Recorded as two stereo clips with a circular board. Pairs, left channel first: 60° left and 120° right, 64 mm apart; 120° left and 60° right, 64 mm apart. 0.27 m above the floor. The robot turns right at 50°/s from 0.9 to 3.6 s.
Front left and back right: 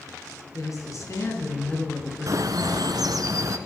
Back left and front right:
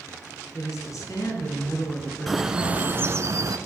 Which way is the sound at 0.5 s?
90° left.